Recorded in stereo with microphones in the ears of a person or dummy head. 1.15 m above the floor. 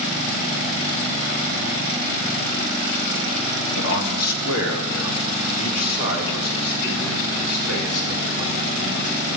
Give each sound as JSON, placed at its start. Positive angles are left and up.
{"t": 3.8, "sound": "a man speaking", "side_deg": 75, "distance_m": 1.2}